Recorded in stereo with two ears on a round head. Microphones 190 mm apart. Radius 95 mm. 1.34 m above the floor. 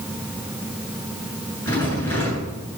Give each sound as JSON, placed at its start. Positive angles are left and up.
{"t": 1.6, "sound": "a rattle", "side_deg": 10, "distance_m": 8.0}